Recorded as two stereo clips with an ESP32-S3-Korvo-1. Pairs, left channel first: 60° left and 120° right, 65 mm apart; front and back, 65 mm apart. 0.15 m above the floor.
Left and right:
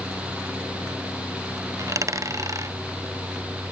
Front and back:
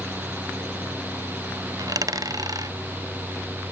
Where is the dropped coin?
155° right.